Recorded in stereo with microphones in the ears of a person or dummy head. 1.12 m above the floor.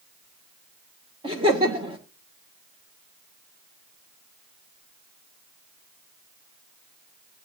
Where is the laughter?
20° right (ahead or behind), 1.2 m.